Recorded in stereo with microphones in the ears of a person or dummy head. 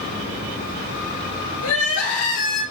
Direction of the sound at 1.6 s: 75° left (ahead or behind).